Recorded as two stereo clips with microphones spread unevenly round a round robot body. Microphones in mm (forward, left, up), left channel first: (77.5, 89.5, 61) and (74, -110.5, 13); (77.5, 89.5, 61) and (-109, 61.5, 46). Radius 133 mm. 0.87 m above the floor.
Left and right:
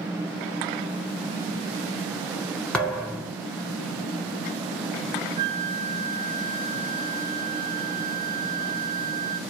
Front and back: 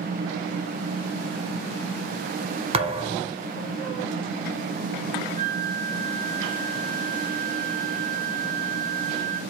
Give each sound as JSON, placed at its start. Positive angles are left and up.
{"t": 2.7, "sound": "a thud", "azimuth_deg": 150, "distance_m": 0.8}
{"t": 5.4, "sound": "a flute", "azimuth_deg": -40, "distance_m": 1.3}